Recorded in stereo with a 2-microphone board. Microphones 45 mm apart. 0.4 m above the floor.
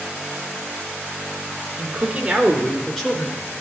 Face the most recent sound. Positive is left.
turn(degrees=45)  # may be behind; listen again after turning